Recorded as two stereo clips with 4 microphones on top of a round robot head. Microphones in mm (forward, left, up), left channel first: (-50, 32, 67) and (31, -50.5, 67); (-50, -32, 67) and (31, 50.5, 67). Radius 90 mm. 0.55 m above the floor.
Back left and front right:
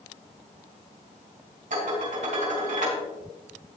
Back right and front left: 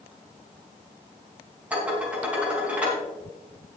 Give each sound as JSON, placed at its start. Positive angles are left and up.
{"t": 1.7, "sound": "dishes clattering", "azimuth_deg": -35, "distance_m": 4.5}